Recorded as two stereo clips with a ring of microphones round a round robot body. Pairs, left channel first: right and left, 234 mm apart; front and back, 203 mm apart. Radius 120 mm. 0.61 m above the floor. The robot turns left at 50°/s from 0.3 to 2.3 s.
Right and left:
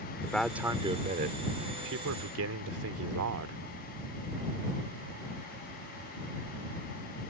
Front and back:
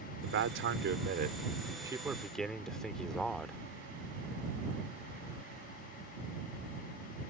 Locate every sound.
0.2 s a man speaking: 175° right; by 3.6 s 85° left